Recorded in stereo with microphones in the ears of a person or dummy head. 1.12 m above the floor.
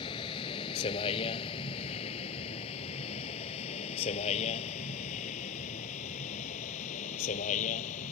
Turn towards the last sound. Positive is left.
turn(degrees=40)  # may be behind; listen again after turning